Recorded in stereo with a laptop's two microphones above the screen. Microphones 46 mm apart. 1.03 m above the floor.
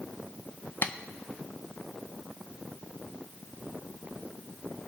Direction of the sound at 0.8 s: 45° left (ahead or behind).